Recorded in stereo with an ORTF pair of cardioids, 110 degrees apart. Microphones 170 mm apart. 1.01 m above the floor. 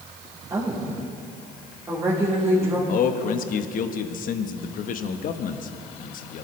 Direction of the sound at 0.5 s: 20° right.